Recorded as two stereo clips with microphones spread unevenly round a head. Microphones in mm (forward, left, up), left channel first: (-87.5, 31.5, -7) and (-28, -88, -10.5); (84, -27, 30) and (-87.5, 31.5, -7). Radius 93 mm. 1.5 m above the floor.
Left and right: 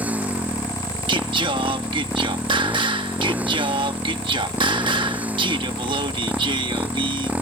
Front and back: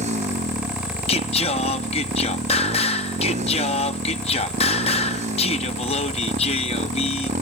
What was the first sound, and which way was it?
A motorcycle, 145° right.